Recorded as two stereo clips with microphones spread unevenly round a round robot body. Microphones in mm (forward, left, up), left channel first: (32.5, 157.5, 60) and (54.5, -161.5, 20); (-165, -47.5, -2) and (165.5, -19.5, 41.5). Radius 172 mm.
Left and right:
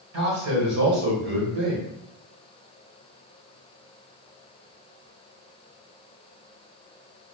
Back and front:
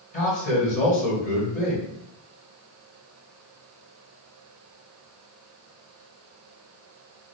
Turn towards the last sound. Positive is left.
turn(degrees=-125)